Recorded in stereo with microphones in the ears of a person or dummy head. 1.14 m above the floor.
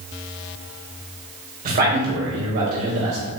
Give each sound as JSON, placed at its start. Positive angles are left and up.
{"t": 1.6, "sound": "a man speaking", "side_deg": -40, "distance_m": 1.3}